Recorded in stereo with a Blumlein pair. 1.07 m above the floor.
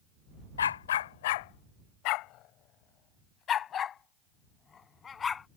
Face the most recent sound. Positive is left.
turn(degrees=20)